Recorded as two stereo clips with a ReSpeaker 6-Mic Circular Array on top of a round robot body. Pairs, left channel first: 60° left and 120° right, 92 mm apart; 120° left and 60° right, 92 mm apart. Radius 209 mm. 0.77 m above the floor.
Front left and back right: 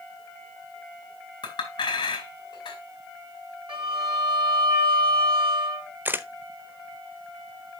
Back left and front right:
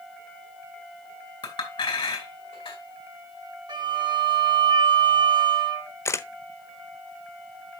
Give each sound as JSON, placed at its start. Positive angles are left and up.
{"t": 1.4, "sound": "a clink", "azimuth_deg": 95, "distance_m": 2.5}
{"t": 3.7, "sound": "a violin", "azimuth_deg": -95, "distance_m": 4.5}
{"t": 6.0, "sound": "a camera shutter", "azimuth_deg": 175, "distance_m": 0.8}